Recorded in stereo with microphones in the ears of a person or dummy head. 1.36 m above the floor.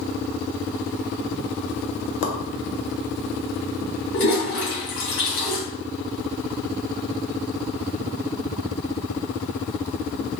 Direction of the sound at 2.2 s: 60° left (ahead or behind).